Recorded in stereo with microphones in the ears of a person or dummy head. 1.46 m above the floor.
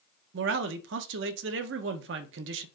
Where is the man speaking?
65° right (ahead or behind), 0.6 m.